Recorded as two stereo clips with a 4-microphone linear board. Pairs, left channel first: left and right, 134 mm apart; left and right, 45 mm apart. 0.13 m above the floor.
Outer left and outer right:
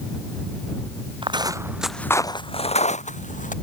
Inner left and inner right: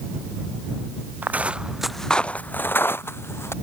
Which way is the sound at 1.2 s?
40° right (ahead or behind).